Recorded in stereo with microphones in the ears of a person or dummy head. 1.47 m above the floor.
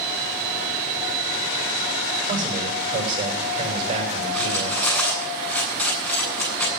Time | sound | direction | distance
2.3 | a man speaking | 30° right (ahead or behind) | 6.5 m
4.3 | cutlery clinking | 10° left (ahead or behind) | 9 m